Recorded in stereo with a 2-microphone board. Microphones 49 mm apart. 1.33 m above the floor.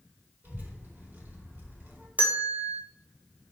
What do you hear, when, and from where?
0.4 s a child speaking: 40° right (ahead or behind), 2.5 m
2.2 s a bell: 25° right (ahead or behind), 1.1 m